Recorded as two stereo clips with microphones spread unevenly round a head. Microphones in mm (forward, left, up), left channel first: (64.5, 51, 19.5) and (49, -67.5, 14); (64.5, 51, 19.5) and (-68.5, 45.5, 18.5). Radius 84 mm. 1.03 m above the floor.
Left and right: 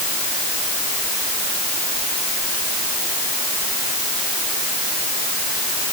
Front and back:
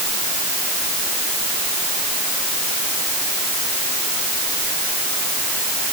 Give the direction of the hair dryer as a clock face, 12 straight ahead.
No hair dryer in this recording.